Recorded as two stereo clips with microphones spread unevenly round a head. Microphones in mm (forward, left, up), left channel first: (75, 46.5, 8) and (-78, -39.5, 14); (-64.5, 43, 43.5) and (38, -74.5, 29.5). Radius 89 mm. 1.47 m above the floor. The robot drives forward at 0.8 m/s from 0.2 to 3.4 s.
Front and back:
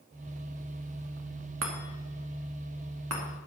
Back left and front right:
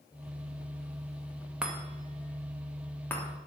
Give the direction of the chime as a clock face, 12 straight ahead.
4 o'clock.